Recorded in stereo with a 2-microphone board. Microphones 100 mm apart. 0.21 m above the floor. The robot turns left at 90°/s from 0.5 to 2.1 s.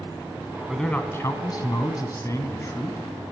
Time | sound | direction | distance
0.7 | a man speaking | straight behind | 1.6 m